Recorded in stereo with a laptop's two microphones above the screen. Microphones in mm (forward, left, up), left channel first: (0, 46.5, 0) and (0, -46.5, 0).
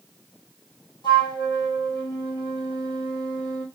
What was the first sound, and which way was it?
A flute, 55° left (ahead or behind).